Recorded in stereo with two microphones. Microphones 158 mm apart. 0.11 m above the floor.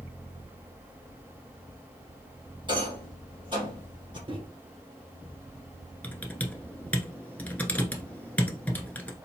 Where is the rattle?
30° right (ahead or behind), 2.5 m.